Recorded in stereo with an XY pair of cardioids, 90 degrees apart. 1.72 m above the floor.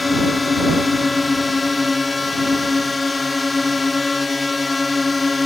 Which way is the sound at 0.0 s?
30° left.